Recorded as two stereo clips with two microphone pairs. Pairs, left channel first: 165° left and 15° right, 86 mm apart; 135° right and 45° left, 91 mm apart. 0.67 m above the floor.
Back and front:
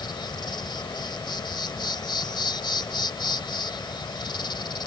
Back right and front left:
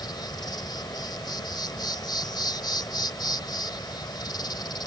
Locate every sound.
0.0 s an insect: 170° right